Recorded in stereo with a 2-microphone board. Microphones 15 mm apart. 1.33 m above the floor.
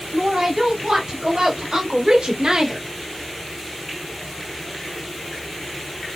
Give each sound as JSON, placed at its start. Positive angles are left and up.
{"t": 0.1, "sound": "a woman speaking", "side_deg": -80, "distance_m": 3.5}